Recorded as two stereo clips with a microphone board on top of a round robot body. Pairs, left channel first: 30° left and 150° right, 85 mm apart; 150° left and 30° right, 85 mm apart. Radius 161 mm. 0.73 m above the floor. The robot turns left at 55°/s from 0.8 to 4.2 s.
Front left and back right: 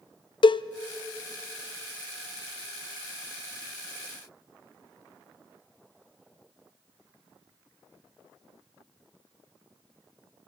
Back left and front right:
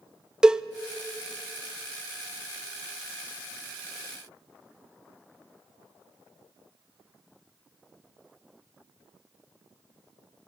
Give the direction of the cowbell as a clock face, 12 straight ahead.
10 o'clock.